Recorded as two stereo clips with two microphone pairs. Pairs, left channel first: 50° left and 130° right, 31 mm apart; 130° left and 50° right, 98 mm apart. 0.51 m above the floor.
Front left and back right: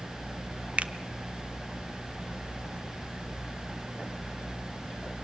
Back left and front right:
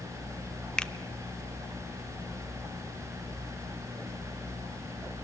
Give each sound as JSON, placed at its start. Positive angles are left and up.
{"t": 0.8, "sound": "a finger snap", "azimuth_deg": -155, "distance_m": 0.6}